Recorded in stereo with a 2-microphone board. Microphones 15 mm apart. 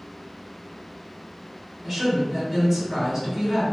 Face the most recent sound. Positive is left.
turn(degrees=-15)  # may be behind; listen again after turning